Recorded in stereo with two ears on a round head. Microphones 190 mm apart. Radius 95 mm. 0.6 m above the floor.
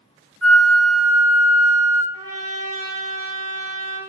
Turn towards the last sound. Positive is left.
turn(degrees=-25)  # may be behind; listen again after turning